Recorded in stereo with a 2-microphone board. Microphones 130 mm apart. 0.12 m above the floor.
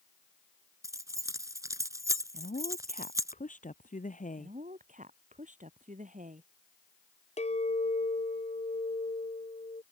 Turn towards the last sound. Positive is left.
turn(degrees=60)  # may be behind; listen again after turning